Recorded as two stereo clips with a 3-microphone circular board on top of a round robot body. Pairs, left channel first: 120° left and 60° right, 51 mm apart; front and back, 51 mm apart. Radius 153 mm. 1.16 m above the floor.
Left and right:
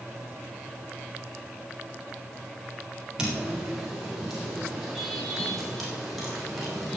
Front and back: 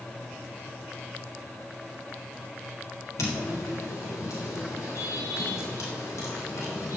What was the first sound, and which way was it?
Footsteps, 15° left.